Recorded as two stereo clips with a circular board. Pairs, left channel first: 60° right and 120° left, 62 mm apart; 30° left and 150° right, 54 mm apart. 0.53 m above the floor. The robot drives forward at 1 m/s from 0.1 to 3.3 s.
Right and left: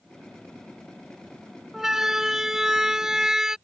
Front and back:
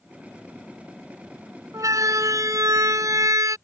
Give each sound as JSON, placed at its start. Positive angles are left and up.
{"t": 1.7, "sound": "a siren", "azimuth_deg": -155}